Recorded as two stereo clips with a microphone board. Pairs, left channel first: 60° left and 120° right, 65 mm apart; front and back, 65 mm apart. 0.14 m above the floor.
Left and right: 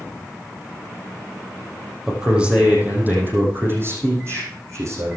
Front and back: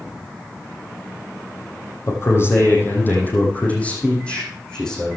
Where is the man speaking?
40° right, 4.5 m; by 5.2 s 80° right, 7.5 m.